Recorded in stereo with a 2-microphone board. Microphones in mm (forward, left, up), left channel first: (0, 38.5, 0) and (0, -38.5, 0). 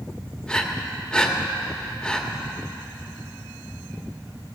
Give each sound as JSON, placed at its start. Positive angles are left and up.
{"t": 0.5, "sound": "breathing", "side_deg": 10, "distance_m": 1.2}